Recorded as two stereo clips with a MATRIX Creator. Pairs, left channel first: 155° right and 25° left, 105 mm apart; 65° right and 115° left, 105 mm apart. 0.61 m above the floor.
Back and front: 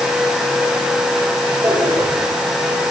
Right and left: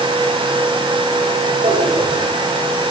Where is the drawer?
95° left, 7.5 m.